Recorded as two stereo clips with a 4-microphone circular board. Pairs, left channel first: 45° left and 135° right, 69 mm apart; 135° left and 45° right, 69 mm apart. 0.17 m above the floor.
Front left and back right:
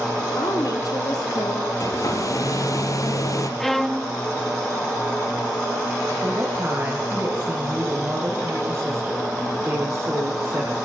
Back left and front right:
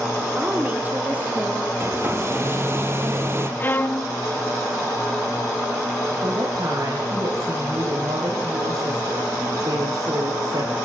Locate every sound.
0.4 s a woman speaking: 20° left, 4 m
1.8 s a hair dryer: 10° left, 3 m
3.6 s a violin: 130° left, 0.7 m
6.2 s a woman speaking: 70° right, 7 m